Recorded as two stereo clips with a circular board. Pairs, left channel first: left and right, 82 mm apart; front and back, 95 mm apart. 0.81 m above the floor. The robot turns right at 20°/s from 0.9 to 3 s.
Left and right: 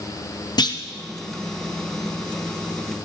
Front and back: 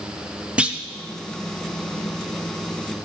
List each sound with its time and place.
0.6 s a clunk: 105° left, 0.5 m